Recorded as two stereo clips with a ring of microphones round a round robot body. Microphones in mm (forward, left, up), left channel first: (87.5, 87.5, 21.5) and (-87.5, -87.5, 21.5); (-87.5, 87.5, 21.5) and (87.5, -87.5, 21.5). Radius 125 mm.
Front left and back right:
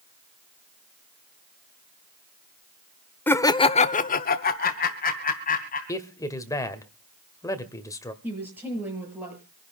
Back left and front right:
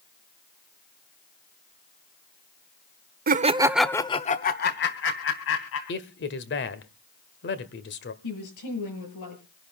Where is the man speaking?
120° left, 1.6 m.